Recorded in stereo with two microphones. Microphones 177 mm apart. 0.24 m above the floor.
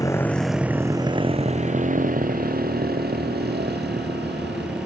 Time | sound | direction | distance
0.0 | a motorcycle | 20° left (ahead or behind) | ?